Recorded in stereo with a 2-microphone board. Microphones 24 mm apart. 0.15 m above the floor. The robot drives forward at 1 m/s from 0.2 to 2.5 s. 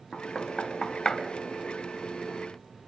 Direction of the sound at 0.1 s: 25° left (ahead or behind).